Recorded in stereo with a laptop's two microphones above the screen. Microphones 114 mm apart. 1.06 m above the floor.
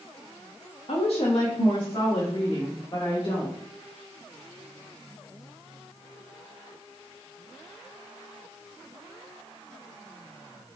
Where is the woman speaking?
60° left (ahead or behind), 1.2 m; by 3.6 s 30° left (ahead or behind), 4 m.